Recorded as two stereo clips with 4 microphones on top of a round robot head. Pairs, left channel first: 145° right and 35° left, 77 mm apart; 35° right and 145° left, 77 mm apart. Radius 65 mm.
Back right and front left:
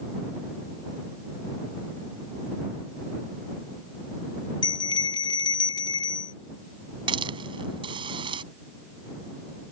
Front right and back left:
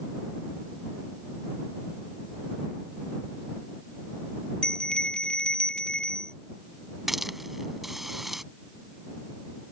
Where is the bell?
115° right.